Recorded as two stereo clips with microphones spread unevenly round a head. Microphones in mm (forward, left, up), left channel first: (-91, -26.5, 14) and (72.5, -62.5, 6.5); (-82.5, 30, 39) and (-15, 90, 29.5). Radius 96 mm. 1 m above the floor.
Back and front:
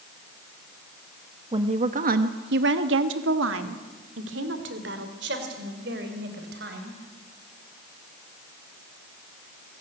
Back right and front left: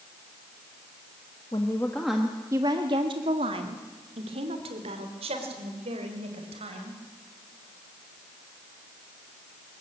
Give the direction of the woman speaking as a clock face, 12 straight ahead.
2 o'clock.